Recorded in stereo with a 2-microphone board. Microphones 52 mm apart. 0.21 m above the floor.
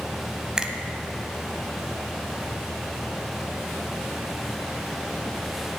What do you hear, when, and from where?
0.6 s a finger snap: 15° right (ahead or behind), 0.8 m